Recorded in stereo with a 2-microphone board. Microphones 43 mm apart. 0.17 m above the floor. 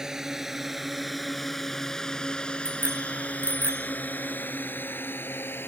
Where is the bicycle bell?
75° right (ahead or behind).